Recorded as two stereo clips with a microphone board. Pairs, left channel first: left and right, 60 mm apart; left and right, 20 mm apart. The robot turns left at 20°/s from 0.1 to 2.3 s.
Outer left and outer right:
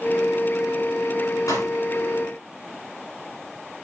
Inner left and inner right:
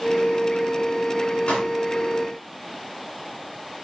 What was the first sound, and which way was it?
A pop, 60° left (ahead or behind).